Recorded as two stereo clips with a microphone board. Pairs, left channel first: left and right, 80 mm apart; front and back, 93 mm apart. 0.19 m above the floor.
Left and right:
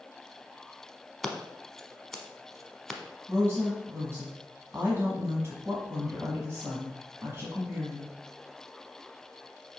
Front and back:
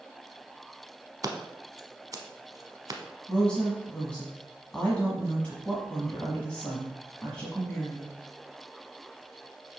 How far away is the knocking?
I don't hear knocking.